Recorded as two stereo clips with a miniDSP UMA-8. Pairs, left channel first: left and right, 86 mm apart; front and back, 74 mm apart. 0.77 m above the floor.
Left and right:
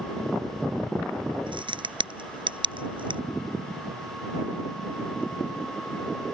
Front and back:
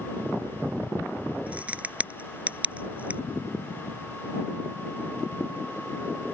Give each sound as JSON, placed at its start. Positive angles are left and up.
{"t": 1.5, "sound": "a crack", "azimuth_deg": -110}